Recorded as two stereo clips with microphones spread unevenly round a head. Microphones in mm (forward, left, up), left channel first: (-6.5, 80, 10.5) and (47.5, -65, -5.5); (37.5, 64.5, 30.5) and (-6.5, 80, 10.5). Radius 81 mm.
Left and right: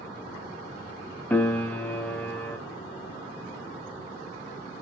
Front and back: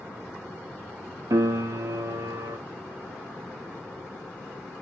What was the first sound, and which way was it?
A piano, 170° right.